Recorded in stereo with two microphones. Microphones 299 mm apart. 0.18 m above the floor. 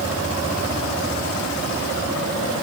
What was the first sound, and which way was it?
Only background noise.